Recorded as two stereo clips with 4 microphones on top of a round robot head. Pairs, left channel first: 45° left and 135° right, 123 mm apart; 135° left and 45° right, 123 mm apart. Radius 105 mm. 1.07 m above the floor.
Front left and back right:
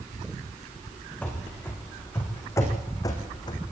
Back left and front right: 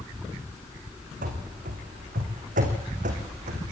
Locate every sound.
1.2 s running footsteps: 35° right, 4 m; by 3.6 s 10° right, 3.5 m